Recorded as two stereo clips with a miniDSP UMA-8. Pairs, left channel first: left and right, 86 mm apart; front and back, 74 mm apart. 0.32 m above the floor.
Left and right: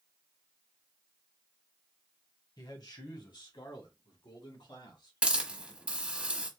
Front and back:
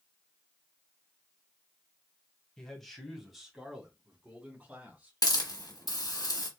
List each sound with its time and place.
2.6 s a man speaking: 80° left, 1.7 m; by 5.2 s 115° left, 3 m
5.2 s a hiss: 15° right, 1.3 m